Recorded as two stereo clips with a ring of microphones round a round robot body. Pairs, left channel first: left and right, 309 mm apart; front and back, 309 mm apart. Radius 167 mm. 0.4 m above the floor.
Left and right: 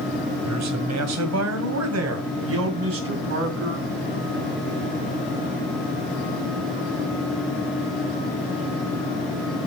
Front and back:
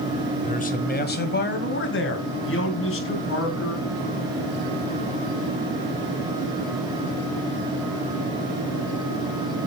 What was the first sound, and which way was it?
A man speaking, 65° right.